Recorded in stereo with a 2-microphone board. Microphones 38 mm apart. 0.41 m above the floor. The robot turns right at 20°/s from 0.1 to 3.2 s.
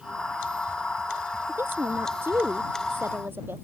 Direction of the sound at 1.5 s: 105° right.